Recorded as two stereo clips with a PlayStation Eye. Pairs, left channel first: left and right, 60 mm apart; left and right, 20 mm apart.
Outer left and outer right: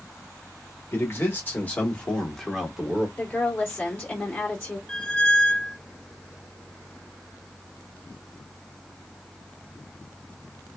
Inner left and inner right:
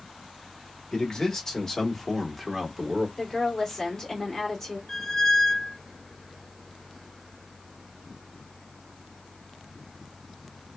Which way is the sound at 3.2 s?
25° left (ahead or behind).